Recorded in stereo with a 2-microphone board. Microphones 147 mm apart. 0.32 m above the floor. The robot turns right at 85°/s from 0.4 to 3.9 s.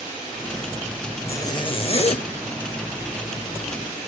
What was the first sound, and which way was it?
A zipper, 25° left.